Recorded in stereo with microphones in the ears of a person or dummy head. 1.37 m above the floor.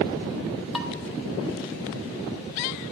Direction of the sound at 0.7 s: Centre (ahead or behind).